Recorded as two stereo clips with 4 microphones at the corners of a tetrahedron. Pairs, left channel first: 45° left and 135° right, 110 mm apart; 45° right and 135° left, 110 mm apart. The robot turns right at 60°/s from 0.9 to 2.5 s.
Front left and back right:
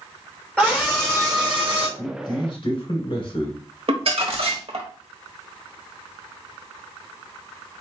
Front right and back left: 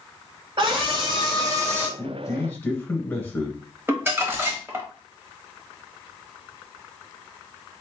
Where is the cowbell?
I don't hear a cowbell.